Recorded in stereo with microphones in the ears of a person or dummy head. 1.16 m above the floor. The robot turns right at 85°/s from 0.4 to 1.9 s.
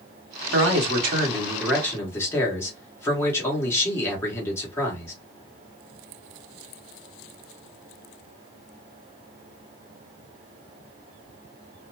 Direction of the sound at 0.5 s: 100° right.